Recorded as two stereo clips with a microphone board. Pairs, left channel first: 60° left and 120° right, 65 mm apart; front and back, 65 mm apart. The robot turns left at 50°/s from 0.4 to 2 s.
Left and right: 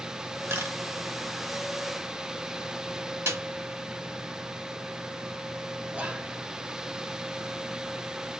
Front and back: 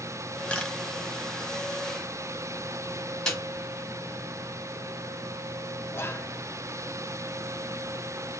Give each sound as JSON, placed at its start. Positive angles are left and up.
{"t": 0.5, "sound": "a camera shutter", "azimuth_deg": -70, "distance_m": 1.2}
{"t": 3.3, "sound": "a snare drum", "azimuth_deg": -80, "distance_m": 1.8}
{"t": 5.9, "sound": "whispering", "azimuth_deg": -50, "distance_m": 0.7}